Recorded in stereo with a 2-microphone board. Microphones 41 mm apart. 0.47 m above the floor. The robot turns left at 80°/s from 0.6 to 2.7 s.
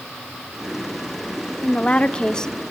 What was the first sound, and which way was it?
A woman speaking, 95° left.